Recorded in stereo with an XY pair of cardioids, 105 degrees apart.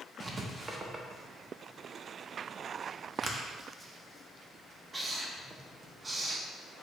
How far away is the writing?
About 0.6 m.